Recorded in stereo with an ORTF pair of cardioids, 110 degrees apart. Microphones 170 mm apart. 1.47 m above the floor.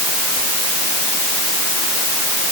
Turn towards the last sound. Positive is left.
No sound to turn to.